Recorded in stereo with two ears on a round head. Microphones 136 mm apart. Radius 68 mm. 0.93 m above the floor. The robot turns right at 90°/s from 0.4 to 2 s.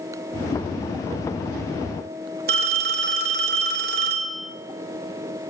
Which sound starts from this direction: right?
A phone ringing, at 2.5 s.